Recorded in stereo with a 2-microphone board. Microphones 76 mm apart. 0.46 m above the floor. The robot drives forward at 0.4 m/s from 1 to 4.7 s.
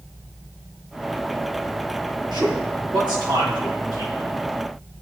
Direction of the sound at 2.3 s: 75° right (ahead or behind).